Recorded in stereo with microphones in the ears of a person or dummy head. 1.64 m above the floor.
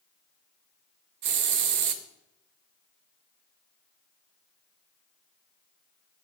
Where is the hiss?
45° right (ahead or behind), 0.7 m.